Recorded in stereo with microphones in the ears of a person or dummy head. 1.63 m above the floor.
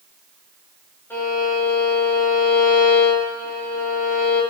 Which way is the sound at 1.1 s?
10° left (ahead or behind).